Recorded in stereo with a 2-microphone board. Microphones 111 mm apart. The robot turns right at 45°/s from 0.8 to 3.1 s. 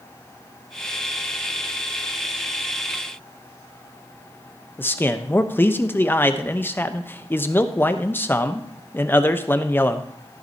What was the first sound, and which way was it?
A man speaking, 20° left (ahead or behind).